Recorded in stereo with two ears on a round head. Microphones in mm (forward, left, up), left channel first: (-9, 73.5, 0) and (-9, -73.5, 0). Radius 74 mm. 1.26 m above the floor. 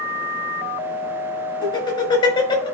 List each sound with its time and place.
1.6 s laughter: 30° left (ahead or behind), 4.5 m